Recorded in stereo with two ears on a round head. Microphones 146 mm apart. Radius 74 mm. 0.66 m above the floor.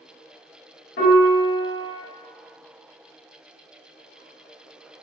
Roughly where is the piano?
Left.